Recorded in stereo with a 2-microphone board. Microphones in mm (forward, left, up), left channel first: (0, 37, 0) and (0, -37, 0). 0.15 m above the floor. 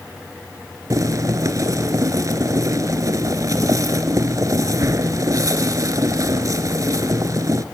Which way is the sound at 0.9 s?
50° right (ahead or behind).